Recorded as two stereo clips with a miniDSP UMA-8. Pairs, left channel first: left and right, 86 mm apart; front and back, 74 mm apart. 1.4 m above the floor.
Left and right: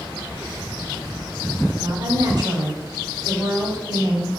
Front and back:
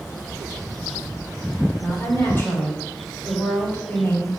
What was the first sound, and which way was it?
A woman speaking, 60° right.